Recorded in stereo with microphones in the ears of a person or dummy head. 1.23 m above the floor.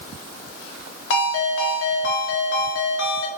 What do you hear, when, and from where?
1.1 s a ringtone: 70° left (ahead or behind), 1.0 m